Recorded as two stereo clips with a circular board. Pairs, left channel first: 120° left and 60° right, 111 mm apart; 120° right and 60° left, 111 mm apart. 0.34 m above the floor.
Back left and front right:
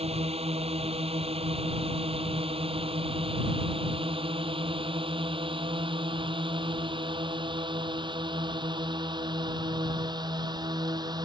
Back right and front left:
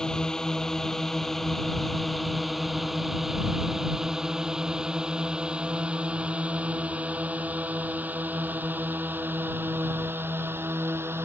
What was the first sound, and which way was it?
A drone, 35° right.